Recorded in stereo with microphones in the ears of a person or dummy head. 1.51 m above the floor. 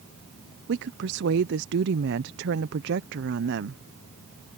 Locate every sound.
0.7 s a woman speaking: 70° right (ahead or behind)